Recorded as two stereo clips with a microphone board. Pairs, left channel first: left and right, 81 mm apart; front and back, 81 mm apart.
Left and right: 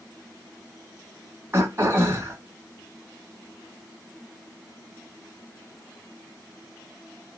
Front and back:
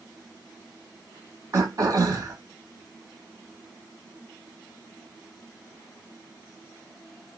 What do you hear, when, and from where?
1.5 s throat clearing: 145° right, 0.9 m